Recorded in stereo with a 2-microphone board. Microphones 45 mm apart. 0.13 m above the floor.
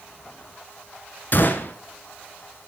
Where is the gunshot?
45° left (ahead or behind), 1.1 m.